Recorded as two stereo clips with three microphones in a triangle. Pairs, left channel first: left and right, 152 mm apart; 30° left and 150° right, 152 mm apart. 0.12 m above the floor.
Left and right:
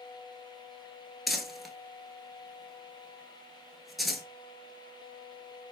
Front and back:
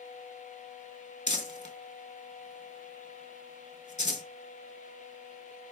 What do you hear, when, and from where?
1.3 s crumpling: straight ahead, 0.5 m